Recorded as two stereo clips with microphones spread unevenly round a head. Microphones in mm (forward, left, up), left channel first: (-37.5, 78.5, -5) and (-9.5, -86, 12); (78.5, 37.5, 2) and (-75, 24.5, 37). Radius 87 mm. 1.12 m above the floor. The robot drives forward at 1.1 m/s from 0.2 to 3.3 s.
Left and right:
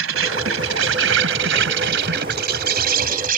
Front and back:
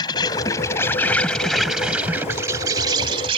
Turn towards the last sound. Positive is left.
turn(degrees=-115)